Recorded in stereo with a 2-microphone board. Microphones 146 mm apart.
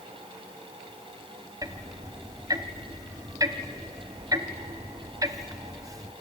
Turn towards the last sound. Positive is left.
turn(degrees=-25)  # may be behind; listen again after turning